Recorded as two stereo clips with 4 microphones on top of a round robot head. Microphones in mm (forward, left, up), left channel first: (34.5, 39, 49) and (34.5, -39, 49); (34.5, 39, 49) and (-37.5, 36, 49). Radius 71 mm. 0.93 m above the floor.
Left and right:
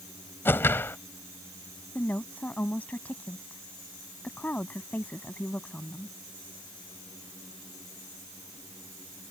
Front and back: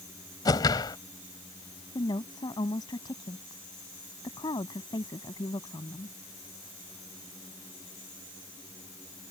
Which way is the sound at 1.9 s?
20° left.